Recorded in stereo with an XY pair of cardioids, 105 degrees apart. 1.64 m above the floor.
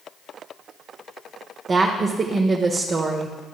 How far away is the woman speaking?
About 0.8 m.